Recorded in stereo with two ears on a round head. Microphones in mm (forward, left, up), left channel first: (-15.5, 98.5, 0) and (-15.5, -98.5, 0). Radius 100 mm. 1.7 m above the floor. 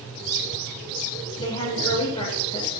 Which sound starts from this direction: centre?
A woman speaking, at 1.4 s.